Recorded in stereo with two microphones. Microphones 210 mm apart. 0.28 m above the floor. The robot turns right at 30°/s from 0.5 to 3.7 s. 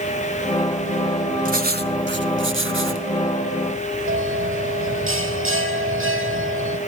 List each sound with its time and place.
1.4 s writing: 135° right, 1.2 m; by 3.1 s 90° right, 1.2 m
4.1 s a bell: 85° right, 4 m